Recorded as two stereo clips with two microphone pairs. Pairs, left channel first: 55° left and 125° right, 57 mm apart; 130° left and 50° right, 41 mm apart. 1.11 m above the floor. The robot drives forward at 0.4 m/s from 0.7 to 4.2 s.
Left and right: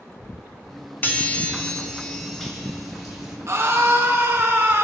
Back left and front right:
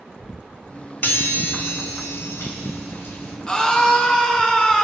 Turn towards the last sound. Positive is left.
turn(degrees=-165)